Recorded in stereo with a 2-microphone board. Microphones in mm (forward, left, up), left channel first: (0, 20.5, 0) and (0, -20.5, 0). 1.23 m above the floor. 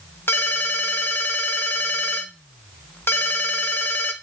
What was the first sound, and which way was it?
A ringtone, 75° left (ahead or behind).